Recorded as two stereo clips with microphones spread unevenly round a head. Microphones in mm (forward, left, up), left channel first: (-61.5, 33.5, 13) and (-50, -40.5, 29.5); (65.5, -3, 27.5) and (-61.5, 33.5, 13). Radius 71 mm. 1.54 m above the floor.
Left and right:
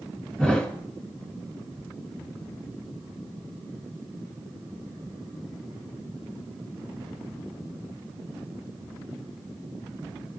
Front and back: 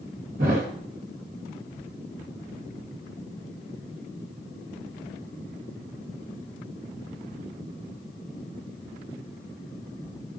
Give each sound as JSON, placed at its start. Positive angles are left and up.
{"t": 0.4, "sound": "a thud", "azimuth_deg": -170, "distance_m": 2.0}